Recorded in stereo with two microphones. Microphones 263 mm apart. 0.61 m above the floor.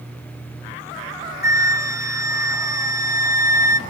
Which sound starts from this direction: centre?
A flute, at 1.4 s.